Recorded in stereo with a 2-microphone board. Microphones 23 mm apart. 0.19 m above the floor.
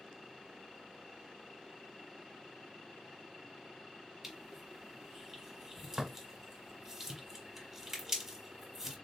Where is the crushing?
10° right (ahead or behind), 1.3 m.